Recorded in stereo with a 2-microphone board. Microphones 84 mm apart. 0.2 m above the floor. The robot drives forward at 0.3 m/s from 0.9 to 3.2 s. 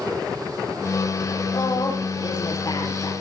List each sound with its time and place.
1.5 s a woman speaking: 50° left (ahead or behind), 6 m